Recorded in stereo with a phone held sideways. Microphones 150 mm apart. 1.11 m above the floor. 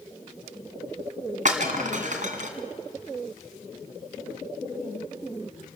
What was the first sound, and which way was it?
Breaking glass, 55° right (ahead or behind).